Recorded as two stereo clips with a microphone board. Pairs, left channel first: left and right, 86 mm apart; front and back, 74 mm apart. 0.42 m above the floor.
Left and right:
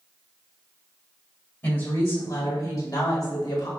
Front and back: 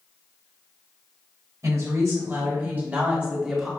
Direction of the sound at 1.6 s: 150° left.